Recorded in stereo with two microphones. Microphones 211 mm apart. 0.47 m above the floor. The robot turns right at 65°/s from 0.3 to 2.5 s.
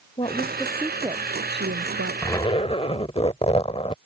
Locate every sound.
0.2 s a woman speaking: 150° left; by 2.1 s 90° right
2.2 s a zipper: 10° left (ahead or behind); by 4.0 s 30° left (ahead or behind)